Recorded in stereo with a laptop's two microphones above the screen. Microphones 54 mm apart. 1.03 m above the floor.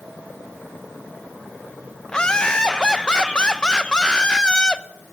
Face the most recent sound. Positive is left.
turn(degrees=15)  # may be behind; listen again after turning